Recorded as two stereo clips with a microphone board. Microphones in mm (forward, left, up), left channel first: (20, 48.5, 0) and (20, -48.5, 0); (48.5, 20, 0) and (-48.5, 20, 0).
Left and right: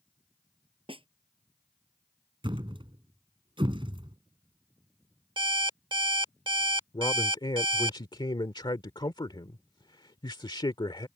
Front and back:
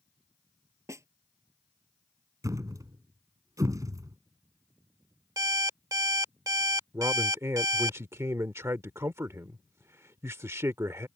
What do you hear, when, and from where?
0.9 s a snare drum: 120° right
2.4 s a thud: 125° right
5.4 s an alarm clock: 125° right
6.9 s a man speaking: 120° left